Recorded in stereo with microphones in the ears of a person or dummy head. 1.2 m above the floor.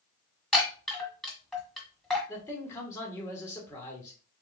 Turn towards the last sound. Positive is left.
turn(degrees=15)  # may be behind; listen again after turning